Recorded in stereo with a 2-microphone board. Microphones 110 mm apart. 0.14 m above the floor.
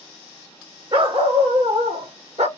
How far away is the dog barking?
About 1.4 m.